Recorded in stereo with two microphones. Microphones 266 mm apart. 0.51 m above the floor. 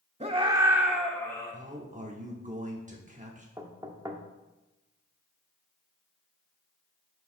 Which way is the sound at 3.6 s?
15° right (ahead or behind).